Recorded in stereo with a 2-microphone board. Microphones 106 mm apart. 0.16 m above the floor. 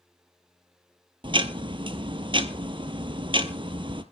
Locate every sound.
1.2 s ticking: 50° right (ahead or behind), 1.0 m